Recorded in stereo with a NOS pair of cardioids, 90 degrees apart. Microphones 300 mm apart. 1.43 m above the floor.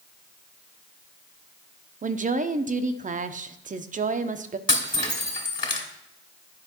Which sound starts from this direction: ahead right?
A woman speaking, at 2.0 s.